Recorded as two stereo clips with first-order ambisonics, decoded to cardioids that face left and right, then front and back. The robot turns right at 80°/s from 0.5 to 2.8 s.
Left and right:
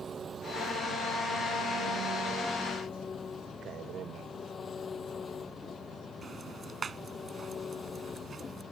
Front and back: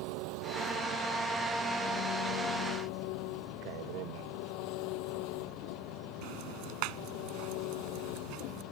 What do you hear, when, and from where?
0.0 s an engine running: 165° right; by 8.7 s 20° left
3.6 s a man speaking: 150° right
6.2 s ticking: 160° right